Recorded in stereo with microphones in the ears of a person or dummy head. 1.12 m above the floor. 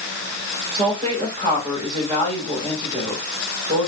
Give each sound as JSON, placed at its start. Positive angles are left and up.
{"t": 0.7, "sound": "a woman speaking", "side_deg": -30, "distance_m": 5.0}